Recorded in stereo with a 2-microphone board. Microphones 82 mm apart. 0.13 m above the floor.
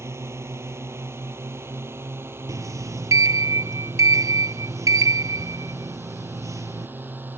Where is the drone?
35° right (ahead or behind); by 7.4 s 25° right (ahead or behind).